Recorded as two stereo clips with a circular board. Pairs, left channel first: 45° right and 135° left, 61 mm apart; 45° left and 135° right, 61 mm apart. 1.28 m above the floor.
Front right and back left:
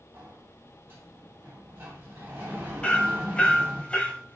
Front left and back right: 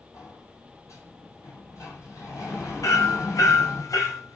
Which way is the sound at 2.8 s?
25° left.